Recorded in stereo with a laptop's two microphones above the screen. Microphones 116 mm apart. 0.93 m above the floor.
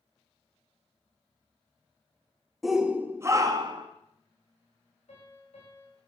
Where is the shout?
Centre (ahead or behind), 0.9 m; by 3.9 s 40° right (ahead or behind), 1.3 m.